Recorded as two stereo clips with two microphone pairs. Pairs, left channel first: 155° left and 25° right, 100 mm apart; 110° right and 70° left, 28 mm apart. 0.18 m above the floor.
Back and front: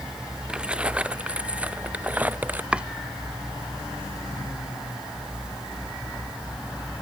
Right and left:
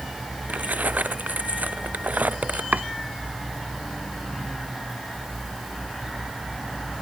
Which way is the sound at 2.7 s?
55° left.